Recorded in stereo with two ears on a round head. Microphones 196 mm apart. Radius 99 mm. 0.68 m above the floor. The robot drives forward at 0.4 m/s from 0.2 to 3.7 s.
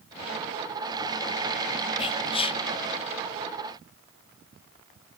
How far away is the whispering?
About 0.7 m.